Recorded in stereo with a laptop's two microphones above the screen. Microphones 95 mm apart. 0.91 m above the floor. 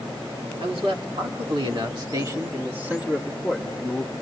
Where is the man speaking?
75° right (ahead or behind), 2.5 m; by 4.1 s 10° left (ahead or behind), 2 m.